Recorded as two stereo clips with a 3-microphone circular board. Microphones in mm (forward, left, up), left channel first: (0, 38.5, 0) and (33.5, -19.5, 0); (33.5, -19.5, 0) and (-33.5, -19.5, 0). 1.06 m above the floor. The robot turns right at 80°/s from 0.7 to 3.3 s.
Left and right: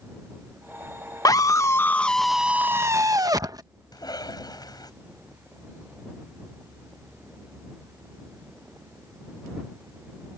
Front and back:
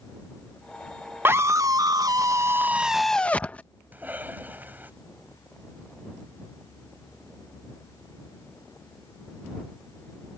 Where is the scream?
130° left; by 3.6 s 70° right.